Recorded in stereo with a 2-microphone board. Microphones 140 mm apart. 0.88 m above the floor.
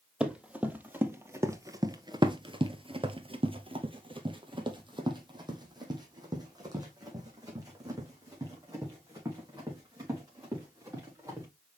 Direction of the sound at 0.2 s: 5° right (ahead or behind).